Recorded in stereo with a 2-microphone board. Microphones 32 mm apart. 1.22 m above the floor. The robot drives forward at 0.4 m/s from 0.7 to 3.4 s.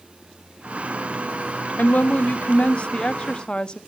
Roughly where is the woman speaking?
Left.